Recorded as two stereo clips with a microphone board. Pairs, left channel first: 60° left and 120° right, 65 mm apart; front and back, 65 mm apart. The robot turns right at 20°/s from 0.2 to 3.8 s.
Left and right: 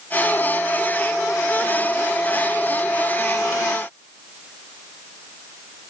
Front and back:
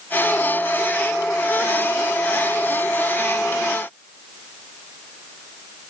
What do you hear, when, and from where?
Only background noise.